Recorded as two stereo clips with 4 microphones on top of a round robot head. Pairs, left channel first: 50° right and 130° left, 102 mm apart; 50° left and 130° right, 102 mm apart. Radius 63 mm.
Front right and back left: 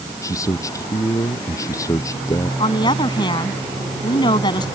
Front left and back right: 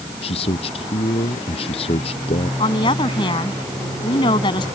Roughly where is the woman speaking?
Ahead.